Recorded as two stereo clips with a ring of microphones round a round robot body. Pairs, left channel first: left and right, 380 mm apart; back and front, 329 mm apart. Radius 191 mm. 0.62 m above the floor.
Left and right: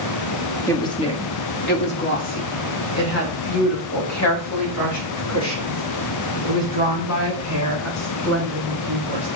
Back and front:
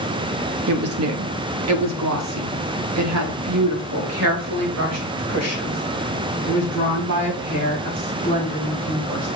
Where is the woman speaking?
10° left, 0.9 m; by 9.3 s 45° left, 5.5 m.